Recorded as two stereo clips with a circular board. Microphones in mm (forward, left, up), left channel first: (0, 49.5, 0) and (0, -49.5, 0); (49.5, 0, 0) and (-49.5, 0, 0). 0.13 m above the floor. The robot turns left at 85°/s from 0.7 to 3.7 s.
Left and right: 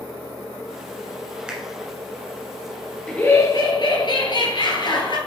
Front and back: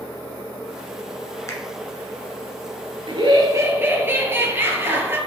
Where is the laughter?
170° left, 2.0 m; by 5.2 s 115° left, 2.0 m.